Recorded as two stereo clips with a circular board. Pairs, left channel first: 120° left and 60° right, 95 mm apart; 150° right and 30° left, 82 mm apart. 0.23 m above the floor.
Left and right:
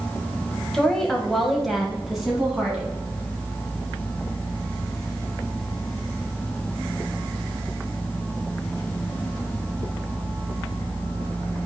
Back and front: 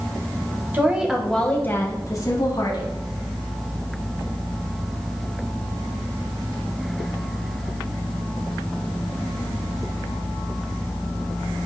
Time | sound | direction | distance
0.7 | a woman speaking | 45° left | 0.9 m